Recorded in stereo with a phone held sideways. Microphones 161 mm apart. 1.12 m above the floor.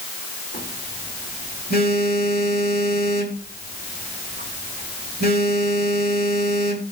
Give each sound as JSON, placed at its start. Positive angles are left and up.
{"t": 0.5, "sound": "a phone buzzing", "side_deg": 70, "distance_m": 3.0}